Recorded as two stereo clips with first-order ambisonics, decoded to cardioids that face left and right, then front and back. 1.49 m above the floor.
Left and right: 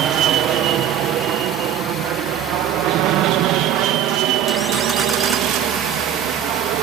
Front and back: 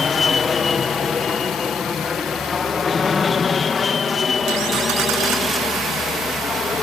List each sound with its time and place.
0.0 s an aircraft: 70° right